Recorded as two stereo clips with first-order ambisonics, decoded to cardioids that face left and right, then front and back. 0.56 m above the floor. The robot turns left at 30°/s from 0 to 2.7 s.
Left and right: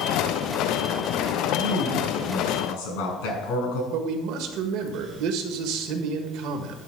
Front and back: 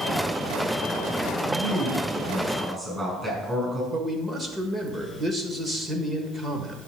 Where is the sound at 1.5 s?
140° left, 6 m; by 3.8 s 105° left, 6 m.